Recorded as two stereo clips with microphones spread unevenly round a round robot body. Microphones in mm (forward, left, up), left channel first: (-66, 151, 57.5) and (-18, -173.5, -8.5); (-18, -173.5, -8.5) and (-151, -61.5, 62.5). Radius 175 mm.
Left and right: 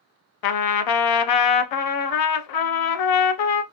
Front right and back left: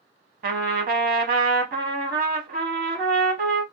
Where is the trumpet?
105° left, 0.5 m.